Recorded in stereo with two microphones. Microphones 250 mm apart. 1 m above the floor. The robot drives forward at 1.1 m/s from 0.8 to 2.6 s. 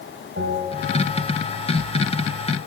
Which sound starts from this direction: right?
A bell, at 0.4 s.